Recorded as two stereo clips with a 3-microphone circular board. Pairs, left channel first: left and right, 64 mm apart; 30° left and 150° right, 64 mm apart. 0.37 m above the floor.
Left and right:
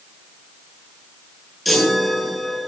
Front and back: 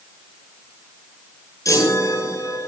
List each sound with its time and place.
1.6 s a chime: straight ahead, 9.5 m